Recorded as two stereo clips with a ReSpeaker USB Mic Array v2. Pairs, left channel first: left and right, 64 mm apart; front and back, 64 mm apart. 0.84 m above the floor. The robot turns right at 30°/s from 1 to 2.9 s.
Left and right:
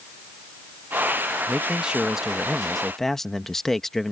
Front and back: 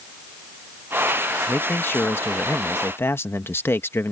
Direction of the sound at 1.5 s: 35° right.